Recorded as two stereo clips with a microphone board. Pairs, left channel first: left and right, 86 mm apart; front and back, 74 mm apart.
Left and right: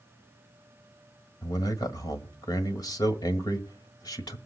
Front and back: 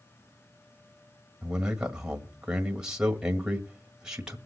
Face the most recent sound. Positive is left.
turn(degrees=105)